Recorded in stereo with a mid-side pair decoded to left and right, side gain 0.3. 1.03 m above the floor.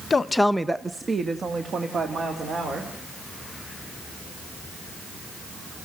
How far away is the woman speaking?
About 0.8 m.